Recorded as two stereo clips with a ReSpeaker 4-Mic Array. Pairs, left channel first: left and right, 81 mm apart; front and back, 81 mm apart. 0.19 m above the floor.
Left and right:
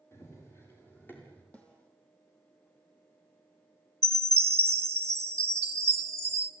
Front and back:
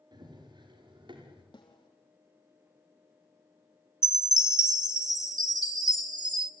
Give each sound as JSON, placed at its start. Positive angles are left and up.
{"t": 0.1, "sound": "running footsteps", "azimuth_deg": 150, "distance_m": 8.5}
{"t": 1.5, "sound": "a snare drum", "azimuth_deg": 20, "distance_m": 4.5}
{"t": 4.0, "sound": "a chime", "azimuth_deg": -145, "distance_m": 1.0}